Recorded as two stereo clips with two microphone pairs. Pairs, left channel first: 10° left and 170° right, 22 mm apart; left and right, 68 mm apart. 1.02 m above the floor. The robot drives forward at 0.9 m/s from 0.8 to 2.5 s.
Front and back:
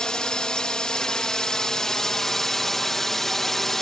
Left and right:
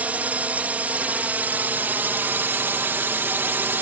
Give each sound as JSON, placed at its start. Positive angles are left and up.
{"t": 0.0, "sound": "a drone", "azimuth_deg": -30}